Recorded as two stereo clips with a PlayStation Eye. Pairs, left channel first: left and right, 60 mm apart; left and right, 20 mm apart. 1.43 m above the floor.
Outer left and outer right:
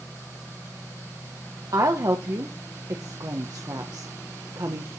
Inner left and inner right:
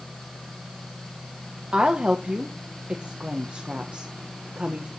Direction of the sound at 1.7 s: 80° right.